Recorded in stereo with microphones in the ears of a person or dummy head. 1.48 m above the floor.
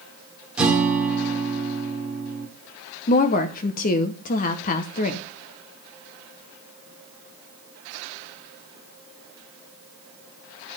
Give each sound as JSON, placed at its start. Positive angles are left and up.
{"t": 0.6, "sound": "a guitar", "side_deg": -5, "distance_m": 2.0}
{"t": 3.1, "sound": "a woman speaking", "side_deg": 45, "distance_m": 0.9}